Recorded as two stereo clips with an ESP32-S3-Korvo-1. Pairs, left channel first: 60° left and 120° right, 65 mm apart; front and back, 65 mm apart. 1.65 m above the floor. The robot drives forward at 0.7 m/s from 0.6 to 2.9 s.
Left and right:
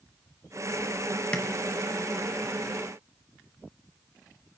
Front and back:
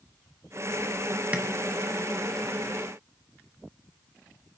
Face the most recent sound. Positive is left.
turn(degrees=155)